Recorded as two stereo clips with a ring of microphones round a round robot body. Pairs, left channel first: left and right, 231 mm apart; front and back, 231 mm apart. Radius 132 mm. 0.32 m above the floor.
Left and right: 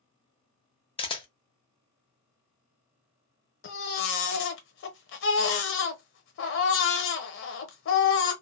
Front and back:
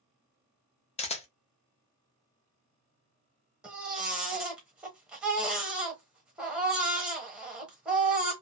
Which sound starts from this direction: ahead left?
A camera shutter, at 1.0 s.